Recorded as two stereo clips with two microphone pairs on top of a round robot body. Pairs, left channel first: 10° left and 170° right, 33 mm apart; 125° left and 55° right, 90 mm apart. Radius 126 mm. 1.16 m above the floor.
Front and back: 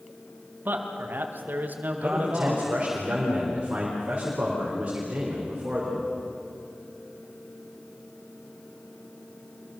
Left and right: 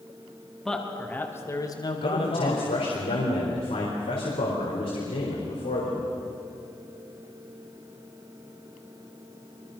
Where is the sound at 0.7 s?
150° right, 2.5 m; by 3.0 s 125° left, 2.5 m.